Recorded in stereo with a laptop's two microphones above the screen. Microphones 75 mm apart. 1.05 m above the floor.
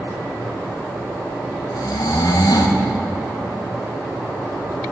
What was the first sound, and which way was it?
Snoring, 60° left (ahead or behind).